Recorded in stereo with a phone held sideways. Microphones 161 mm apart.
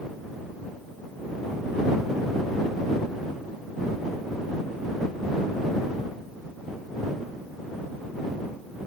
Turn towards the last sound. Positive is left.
No sound to turn to.